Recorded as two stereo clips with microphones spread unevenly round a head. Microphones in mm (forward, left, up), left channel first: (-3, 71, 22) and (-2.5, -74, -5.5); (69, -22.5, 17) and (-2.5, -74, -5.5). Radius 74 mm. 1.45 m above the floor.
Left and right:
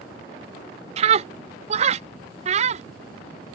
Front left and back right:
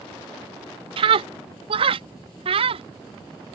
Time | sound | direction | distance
1.0 | a scream | 135° right | ?